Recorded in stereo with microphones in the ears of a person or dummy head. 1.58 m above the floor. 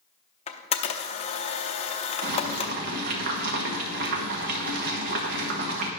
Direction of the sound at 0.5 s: 35° left (ahead or behind).